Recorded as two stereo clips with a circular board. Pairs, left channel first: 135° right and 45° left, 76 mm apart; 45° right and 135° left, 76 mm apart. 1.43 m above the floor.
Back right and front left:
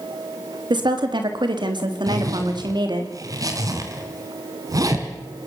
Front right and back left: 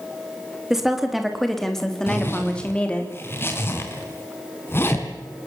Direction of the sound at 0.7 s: 50° left.